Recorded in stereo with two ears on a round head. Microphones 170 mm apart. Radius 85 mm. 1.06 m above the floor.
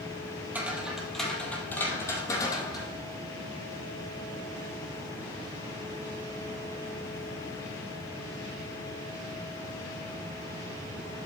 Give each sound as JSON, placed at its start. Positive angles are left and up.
{"t": 0.5, "sound": "footsteps", "side_deg": -10, "distance_m": 1.9}